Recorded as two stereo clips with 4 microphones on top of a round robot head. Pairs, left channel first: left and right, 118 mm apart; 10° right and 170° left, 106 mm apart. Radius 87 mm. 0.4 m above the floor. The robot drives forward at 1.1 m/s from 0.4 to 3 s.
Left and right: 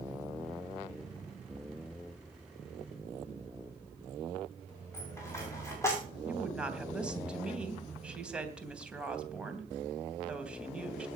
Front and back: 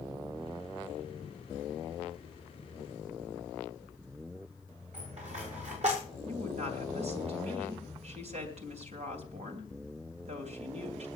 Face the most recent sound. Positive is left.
turn(degrees=-170)